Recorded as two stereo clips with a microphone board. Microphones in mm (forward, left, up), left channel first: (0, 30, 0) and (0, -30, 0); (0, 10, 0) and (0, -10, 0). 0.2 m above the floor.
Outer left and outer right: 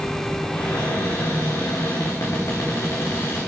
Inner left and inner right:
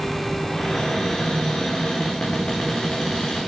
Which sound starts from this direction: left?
A cupboard door, at 0.5 s.